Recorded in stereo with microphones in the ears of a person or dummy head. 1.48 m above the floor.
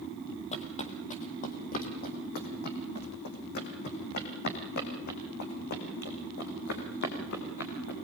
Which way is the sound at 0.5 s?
40° left (ahead or behind).